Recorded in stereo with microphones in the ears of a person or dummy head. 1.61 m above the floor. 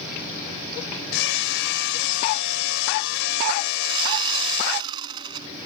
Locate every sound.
1.1 s hammering: 70° left (ahead or behind)
3.8 s sawing: 25° right (ahead or behind)